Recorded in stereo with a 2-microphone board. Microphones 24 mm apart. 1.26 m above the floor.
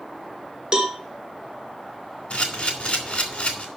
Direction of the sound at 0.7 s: 40° right (ahead or behind).